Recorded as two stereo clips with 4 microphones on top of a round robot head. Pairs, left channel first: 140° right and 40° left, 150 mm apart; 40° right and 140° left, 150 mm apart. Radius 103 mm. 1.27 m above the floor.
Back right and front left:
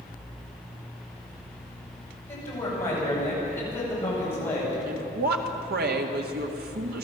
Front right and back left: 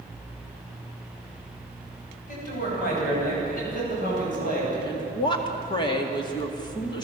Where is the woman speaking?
25° left, 2 m.